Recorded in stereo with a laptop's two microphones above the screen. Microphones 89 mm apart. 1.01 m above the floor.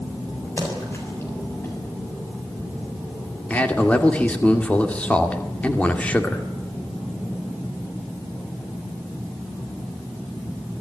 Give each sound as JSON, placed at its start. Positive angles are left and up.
{"t": 0.6, "sound": "a splash", "side_deg": 30, "distance_m": 7.5}
{"t": 3.5, "sound": "a man speaking", "side_deg": 15, "distance_m": 2.0}